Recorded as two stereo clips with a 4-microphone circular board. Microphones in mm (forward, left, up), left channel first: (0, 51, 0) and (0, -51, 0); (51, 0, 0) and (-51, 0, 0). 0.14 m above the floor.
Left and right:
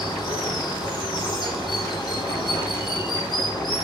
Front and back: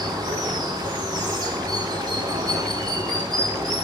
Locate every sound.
0.0 s running water: 135° left, 5 m